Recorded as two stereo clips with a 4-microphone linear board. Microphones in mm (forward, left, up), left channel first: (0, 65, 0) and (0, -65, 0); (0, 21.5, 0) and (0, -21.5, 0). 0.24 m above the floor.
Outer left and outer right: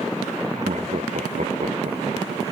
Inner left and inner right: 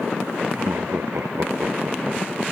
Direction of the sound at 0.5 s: 70° right (ahead or behind).